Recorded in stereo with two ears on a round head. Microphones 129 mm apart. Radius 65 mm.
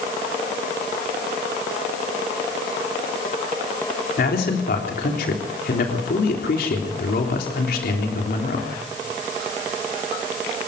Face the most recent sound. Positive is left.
turn(degrees=75)  # may be behind; listen again after turning